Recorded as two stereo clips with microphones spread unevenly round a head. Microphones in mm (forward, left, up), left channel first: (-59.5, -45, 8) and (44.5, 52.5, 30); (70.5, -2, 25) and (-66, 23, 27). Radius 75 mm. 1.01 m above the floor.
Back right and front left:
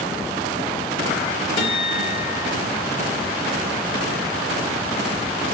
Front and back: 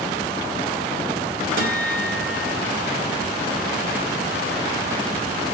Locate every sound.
1.6 s a guitar: 170° left, 4.5 m